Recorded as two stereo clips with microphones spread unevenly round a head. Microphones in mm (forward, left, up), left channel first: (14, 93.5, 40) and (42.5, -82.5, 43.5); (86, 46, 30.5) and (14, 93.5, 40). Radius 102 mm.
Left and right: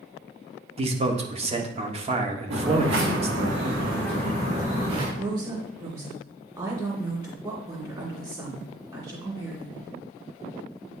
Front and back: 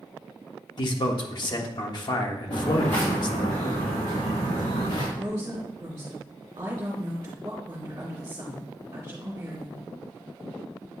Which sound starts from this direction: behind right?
A woman speaking, at 5.2 s.